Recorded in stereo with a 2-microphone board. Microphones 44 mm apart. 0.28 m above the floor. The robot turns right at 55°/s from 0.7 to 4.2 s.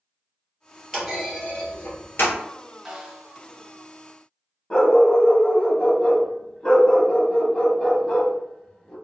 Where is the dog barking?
20° left (ahead or behind), 0.8 m.